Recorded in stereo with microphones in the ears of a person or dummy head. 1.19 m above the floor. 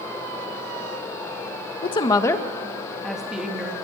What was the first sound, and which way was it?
A woman speaking, 30° left (ahead or behind).